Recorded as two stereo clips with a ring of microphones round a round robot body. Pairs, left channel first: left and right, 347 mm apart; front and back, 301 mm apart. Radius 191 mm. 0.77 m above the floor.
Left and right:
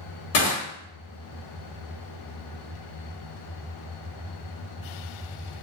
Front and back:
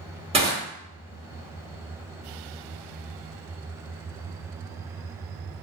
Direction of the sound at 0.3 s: 110° left.